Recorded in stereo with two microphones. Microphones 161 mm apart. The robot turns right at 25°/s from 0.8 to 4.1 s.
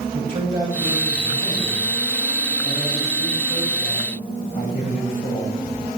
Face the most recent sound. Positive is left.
turn(degrees=40)